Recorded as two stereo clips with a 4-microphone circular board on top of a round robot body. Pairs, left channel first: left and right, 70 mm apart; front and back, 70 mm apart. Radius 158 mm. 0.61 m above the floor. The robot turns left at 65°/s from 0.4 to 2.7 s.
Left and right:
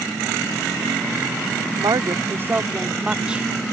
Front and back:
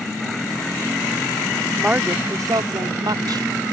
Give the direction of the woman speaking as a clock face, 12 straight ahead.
3 o'clock.